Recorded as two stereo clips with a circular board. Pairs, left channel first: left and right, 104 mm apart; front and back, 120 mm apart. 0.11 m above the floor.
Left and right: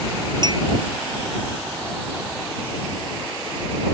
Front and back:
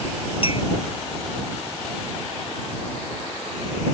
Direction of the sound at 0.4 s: 40° right.